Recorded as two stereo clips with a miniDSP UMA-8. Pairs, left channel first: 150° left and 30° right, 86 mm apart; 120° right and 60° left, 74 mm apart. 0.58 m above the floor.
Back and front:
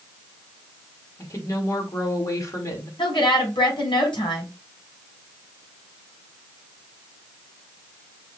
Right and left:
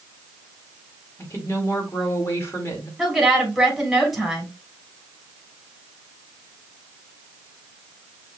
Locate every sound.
1.2 s a woman speaking: 170° right, 1.9 m
3.0 s a woman speaking: 150° left, 3 m